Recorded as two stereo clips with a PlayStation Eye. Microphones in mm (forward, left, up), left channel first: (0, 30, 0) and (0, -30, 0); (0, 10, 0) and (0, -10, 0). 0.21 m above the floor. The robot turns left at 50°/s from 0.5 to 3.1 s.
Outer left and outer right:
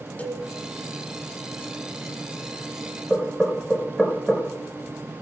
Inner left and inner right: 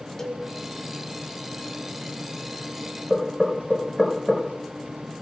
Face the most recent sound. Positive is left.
turn(degrees=-5)  # may be behind; listen again after turning